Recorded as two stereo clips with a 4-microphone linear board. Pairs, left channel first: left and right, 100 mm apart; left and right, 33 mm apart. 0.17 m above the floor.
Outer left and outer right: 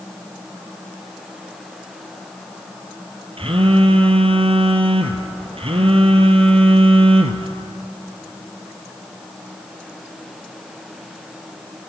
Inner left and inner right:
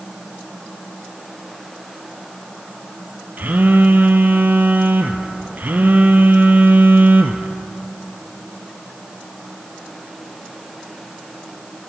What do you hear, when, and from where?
3.4 s a phone buzzing: 70° right (ahead or behind), 1.1 m